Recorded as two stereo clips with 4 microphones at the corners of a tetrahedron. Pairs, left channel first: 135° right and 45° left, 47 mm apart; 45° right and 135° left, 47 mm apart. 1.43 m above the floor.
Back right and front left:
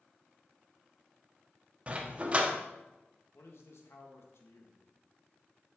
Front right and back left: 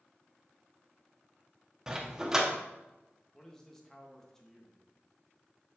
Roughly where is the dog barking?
Left.